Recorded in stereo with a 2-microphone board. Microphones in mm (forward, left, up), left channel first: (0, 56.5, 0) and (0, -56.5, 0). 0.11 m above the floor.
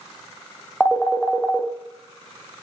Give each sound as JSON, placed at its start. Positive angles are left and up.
{"t": 0.8, "sound": "a phone ringing", "side_deg": 5, "distance_m": 2.5}